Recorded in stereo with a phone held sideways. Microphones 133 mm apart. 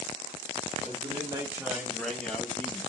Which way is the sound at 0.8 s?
40° right (ahead or behind).